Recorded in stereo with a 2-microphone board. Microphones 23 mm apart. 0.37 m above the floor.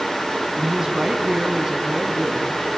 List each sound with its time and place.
0.6 s a woman speaking: 20° right (ahead or behind), 2.5 m; by 2.7 s 10° right (ahead or behind), 3.5 m